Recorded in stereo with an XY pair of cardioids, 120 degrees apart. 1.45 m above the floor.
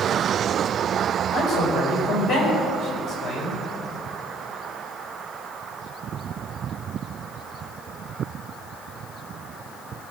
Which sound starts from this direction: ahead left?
A man speaking, at 1.3 s.